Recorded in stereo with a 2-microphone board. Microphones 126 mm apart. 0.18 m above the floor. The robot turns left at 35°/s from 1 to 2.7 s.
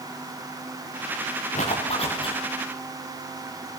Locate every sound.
1.6 s a zipper: 70° left (ahead or behind), 8.5 m; by 2.4 s 40° left (ahead or behind), 8.5 m